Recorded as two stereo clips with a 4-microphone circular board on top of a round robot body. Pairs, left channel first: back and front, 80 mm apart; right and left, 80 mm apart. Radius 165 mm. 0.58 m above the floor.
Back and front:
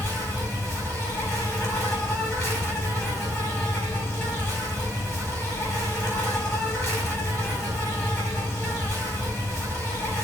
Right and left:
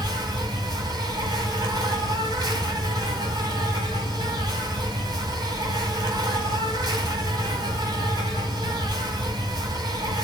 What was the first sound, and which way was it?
An insect, 125° left.